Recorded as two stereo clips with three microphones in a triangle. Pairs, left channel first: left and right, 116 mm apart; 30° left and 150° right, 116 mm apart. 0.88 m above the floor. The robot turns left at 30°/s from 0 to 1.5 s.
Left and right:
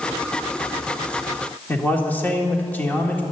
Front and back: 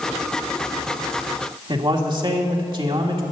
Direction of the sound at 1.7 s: 165° left.